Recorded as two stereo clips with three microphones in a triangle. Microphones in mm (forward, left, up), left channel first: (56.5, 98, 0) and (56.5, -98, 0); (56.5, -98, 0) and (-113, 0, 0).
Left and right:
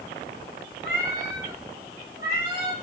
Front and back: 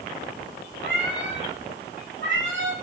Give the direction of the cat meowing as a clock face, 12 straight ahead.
8 o'clock.